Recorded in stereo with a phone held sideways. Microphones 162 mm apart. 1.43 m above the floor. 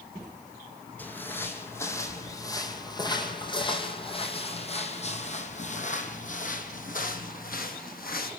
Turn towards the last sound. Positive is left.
turn(degrees=65)  # may be behind; listen again after turning